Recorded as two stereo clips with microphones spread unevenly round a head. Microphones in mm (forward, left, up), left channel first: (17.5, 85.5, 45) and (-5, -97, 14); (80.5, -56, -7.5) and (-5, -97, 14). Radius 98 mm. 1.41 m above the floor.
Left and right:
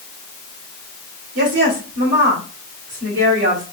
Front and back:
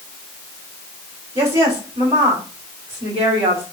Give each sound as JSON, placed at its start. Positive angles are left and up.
{"t": 1.4, "sound": "a woman speaking", "azimuth_deg": -130, "distance_m": 3.5}